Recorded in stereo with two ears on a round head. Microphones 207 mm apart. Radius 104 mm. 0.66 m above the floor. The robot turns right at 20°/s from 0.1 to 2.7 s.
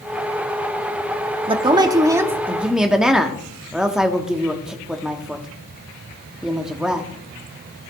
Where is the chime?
No chime in this recording.